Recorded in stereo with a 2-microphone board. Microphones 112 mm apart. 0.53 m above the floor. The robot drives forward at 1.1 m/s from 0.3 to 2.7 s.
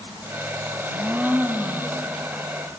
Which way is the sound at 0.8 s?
20° right (ahead or behind).